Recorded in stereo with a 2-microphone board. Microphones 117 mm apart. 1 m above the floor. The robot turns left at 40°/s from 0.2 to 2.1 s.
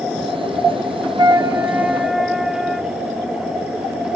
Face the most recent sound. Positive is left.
turn(degrees=-175)